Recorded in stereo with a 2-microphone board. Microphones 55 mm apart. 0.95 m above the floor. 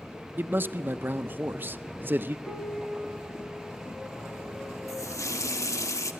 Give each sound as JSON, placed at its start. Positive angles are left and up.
{"t": 0.4, "sound": "a man speaking", "side_deg": -40, "distance_m": 0.6}
{"t": 2.5, "sound": "a piano", "side_deg": 20, "distance_m": 1.3}
{"t": 4.9, "sound": "a running tap", "side_deg": 90, "distance_m": 0.9}